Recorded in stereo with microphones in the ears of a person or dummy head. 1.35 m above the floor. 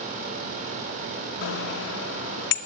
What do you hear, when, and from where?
1.4 s a bicycle bell: 75° left (ahead or behind), 2 m